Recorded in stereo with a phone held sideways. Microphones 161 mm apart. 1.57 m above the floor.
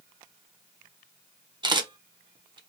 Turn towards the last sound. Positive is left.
turn(degrees=-30)  # may be behind; listen again after turning